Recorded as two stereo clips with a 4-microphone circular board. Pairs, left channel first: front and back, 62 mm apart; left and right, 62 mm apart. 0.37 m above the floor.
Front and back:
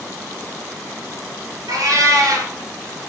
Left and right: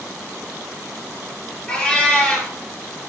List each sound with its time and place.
1.7 s a cat meowing: 165° left, 3.5 m